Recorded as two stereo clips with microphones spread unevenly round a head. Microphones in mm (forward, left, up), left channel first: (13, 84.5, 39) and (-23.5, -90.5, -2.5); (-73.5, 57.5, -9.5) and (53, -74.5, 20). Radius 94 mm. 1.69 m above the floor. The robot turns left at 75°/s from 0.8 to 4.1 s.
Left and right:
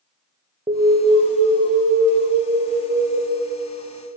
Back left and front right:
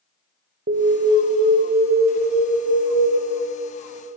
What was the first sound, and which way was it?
An alarm, 20° right.